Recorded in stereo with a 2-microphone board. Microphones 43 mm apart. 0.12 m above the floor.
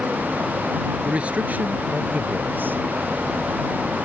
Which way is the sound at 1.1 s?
25° right (ahead or behind).